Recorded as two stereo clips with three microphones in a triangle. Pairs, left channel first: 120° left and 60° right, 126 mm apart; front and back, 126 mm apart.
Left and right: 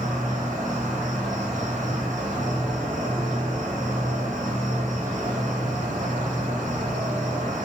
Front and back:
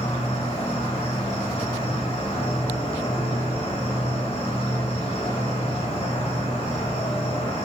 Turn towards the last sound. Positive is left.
turn(degrees=-40)